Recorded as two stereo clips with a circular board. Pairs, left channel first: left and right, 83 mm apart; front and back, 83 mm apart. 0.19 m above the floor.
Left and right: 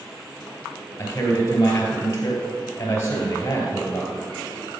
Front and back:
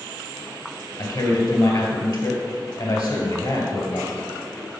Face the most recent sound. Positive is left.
turn(degrees=30)